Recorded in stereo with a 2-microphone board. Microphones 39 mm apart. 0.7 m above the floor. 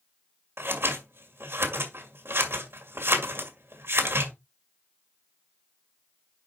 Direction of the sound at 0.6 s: 75° right (ahead or behind).